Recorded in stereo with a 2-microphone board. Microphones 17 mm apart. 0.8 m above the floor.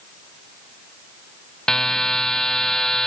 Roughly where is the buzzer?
Left.